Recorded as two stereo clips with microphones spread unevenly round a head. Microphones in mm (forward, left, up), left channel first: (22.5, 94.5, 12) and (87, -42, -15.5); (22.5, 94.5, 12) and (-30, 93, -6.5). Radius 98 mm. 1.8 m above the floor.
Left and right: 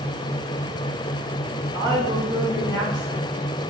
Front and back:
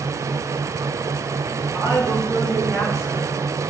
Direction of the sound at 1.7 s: 170° right.